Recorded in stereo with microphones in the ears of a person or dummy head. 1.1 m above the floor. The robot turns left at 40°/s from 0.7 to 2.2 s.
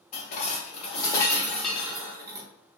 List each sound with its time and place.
0.1 s dishes clattering: 45° left, 0.9 m; by 2.5 s 15° right, 0.9 m